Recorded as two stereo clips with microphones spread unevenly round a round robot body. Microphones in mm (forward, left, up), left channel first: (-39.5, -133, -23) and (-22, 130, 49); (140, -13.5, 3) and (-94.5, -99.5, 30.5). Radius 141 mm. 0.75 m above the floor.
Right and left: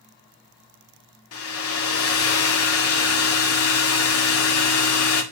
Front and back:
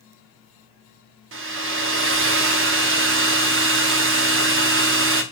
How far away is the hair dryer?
About 1.3 m.